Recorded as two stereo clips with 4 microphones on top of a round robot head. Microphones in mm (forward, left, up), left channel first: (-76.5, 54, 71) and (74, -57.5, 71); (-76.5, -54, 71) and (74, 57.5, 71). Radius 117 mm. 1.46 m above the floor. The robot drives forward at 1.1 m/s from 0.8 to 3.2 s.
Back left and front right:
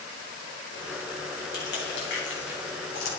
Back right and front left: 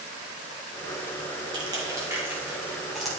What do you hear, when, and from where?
1.5 s crushing: 105° left, 3.5 m; by 3.2 s 130° left, 4.5 m